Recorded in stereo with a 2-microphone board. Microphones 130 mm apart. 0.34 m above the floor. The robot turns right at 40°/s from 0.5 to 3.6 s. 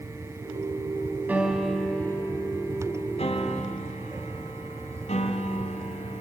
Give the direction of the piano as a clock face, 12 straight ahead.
12 o'clock.